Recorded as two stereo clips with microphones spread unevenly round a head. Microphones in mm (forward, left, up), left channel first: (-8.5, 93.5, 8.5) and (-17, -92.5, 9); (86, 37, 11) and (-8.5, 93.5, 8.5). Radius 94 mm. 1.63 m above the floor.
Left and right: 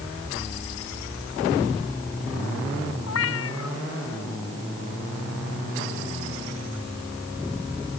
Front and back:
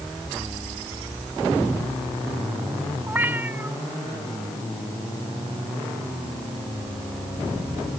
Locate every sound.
3.1 s a cat meowing: 80° left